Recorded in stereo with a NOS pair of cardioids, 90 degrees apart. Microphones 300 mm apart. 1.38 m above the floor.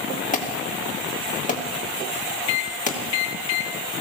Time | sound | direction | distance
0.3 | an alarm | 25° left | 2.5 m
2.5 | a microwave | 65° left | 1.6 m